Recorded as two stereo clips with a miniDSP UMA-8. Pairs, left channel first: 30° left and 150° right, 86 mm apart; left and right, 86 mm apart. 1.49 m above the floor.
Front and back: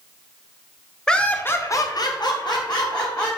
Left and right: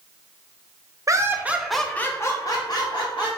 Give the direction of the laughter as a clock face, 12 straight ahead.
2 o'clock.